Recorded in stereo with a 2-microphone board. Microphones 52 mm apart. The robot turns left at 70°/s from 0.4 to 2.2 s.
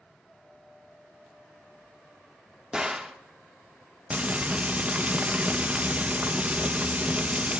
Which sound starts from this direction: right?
Frying, at 4.1 s.